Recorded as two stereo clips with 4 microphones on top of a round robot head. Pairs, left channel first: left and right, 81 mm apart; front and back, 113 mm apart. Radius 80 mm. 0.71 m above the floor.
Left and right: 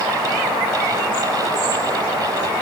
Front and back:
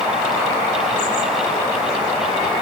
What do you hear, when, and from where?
Only background noise.